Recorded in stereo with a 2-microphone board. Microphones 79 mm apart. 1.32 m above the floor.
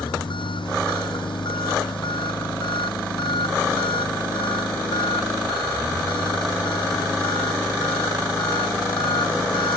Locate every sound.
0.0 s an engine running: 90° left